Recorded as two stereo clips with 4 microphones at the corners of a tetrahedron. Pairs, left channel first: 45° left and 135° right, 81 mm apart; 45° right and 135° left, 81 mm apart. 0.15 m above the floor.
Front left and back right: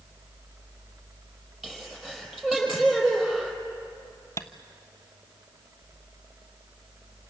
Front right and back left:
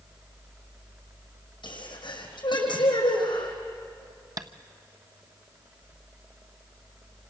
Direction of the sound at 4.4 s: 100° left.